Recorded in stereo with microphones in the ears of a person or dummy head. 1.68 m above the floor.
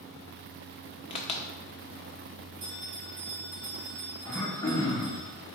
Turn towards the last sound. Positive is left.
turn(degrees=15)  # may be behind; listen again after turning